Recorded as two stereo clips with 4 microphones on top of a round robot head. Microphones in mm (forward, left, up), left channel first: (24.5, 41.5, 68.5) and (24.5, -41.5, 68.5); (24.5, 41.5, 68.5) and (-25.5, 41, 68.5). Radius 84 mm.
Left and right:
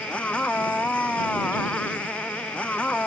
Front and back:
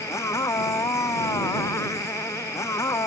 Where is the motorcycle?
15° left.